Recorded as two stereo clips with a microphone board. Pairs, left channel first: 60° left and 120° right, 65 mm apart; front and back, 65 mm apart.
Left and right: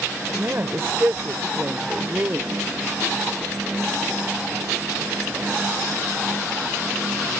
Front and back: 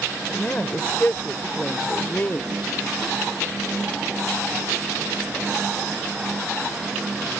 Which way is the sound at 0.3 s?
70° right.